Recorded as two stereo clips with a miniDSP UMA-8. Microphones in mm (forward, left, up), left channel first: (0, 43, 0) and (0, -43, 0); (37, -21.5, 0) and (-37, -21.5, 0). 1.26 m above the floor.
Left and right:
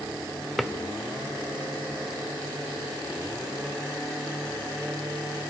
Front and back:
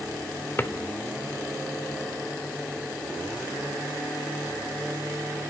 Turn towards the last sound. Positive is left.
turn(degrees=5)